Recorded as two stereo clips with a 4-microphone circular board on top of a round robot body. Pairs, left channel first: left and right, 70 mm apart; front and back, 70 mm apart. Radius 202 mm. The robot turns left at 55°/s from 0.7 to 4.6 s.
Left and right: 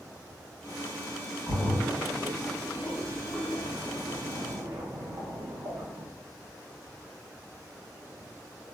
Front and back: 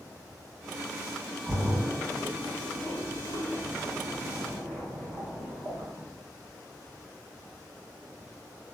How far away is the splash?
About 1.8 m.